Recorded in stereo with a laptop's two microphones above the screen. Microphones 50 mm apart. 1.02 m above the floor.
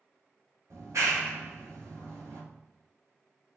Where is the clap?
80° right, 1.2 m.